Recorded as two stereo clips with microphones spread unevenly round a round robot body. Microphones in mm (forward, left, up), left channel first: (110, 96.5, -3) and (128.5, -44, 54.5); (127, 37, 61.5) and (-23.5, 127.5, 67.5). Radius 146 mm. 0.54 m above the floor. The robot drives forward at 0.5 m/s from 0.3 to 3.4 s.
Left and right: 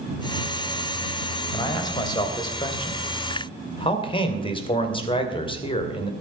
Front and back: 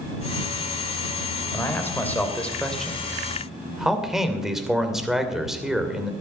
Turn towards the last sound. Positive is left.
turn(degrees=60)